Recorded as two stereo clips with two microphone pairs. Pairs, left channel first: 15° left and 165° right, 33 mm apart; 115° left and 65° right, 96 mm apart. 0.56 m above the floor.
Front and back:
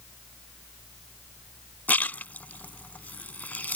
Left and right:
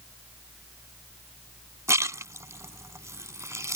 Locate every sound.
1.9 s a splash: 10° right